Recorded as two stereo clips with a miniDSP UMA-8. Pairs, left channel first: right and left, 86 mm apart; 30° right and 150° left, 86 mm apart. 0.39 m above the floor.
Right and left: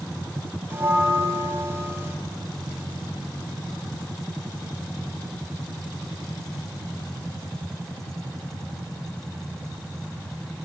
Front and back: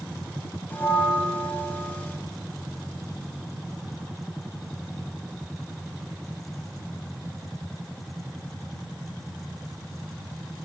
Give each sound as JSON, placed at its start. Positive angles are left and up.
{"t": 0.7, "sound": "a bell", "azimuth_deg": 35, "distance_m": 2.0}